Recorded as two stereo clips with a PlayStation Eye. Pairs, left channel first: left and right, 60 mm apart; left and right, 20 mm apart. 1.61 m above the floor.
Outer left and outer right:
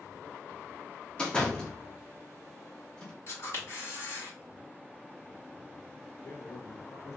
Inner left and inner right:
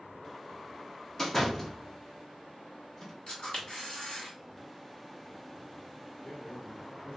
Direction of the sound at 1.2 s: 15° left (ahead or behind).